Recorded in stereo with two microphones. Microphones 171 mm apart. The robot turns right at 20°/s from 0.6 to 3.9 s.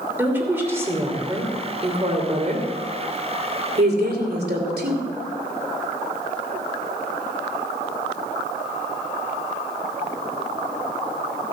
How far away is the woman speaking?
About 2.5 m.